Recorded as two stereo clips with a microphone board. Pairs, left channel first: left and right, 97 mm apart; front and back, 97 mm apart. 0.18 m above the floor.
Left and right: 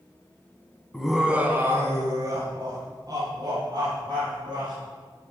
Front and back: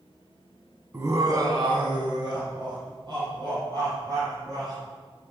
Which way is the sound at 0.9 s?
165° left.